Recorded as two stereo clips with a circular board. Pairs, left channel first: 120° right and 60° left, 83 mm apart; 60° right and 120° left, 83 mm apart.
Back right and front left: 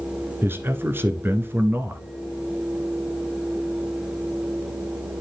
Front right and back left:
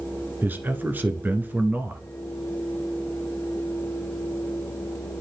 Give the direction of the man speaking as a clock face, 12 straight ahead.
9 o'clock.